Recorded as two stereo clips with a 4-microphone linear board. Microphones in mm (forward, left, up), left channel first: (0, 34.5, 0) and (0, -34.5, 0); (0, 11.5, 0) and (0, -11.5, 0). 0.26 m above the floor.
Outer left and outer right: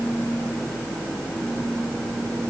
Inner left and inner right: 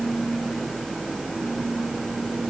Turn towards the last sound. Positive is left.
No sound to turn to.